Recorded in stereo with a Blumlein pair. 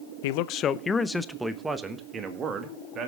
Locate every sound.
0.2 s a man speaking: 55° left, 0.7 m; by 3.1 s 30° right, 2 m